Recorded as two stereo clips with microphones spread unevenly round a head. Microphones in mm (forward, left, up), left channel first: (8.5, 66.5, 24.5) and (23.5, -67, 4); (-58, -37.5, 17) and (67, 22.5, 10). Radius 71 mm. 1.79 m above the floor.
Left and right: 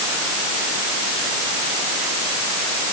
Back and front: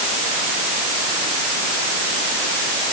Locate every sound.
Only background noise.